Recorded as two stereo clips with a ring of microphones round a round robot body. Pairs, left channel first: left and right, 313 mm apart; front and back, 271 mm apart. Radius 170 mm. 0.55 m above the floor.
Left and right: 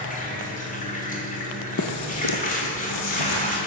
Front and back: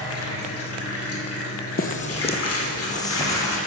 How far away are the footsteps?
About 0.8 m.